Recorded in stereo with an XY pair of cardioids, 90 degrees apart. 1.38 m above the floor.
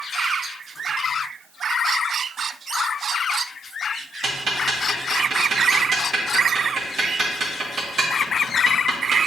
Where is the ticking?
45° right, 2.0 m.